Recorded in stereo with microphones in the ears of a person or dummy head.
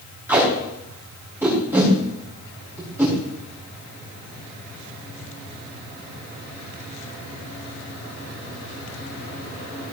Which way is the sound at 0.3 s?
10° right (ahead or behind).